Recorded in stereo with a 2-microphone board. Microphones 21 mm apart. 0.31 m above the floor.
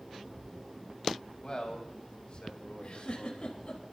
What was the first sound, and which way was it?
A man speaking, 45° left (ahead or behind).